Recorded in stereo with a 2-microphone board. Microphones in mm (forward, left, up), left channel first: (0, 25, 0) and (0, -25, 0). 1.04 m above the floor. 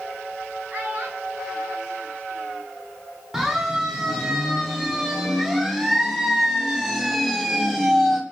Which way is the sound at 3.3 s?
15° right (ahead or behind).